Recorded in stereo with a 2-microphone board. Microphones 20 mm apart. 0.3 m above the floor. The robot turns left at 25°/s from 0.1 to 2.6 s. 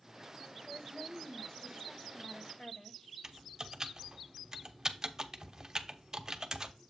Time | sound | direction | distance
0.7 | a woman speaking | 135° left | 1.2 m
3.2 | typing on a keyboard | 30° right (ahead or behind) | 0.7 m